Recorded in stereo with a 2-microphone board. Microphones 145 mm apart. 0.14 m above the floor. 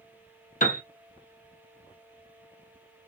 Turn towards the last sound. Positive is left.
turn(degrees=70)  # may be behind; listen again after turning